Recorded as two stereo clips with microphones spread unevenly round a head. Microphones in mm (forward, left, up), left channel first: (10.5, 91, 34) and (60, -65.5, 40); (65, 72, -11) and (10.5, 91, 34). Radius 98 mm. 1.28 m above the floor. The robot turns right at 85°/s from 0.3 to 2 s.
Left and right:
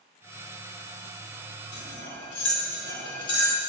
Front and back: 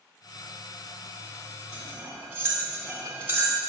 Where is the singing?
I don't hear singing.